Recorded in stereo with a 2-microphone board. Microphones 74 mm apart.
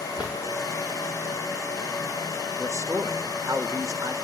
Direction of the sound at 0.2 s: 20° right (ahead or behind).